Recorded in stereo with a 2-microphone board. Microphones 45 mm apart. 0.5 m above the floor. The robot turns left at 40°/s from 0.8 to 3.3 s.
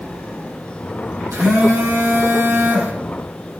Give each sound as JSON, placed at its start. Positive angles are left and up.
{"t": 1.3, "sound": "a phone buzzing", "azimuth_deg": -75, "distance_m": 6.0}